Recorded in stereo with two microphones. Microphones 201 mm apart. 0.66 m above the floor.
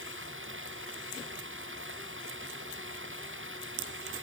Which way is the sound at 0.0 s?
80° right.